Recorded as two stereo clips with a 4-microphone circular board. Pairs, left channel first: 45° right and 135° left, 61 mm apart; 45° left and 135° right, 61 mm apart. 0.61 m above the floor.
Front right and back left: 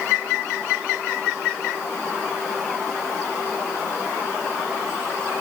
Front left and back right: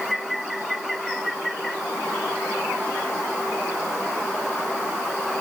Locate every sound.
Only background noise.